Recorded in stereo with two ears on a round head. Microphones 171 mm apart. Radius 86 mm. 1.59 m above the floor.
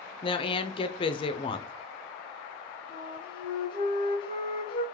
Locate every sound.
0.2 s a woman speaking: 30° left (ahead or behind), 0.5 m
2.9 s a flute: 30° left (ahead or behind), 1.1 m